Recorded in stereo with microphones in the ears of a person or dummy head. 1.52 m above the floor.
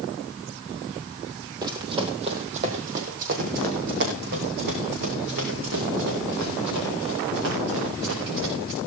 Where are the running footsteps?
20° right (ahead or behind), 2 m; by 8.8 s 70° right (ahead or behind), 7.5 m.